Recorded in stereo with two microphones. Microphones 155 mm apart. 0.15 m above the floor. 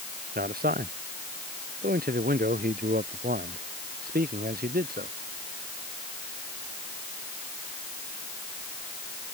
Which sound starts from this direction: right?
A man speaking, at 0.3 s.